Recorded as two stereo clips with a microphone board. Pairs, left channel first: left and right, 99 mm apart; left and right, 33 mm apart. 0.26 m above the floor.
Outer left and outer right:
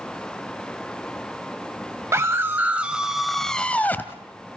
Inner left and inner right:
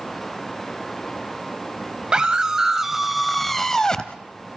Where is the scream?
30° right (ahead or behind), 1.4 m; by 4.2 s 25° left (ahead or behind), 1.3 m.